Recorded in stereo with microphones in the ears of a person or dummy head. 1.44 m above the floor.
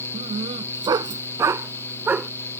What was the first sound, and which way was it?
A dog barking, 30° right (ahead or behind).